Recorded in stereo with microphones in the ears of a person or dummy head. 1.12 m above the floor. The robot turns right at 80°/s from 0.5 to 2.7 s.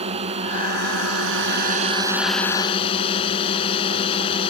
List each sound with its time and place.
0.0 s a drone: 145° right; by 4.5 s 35° left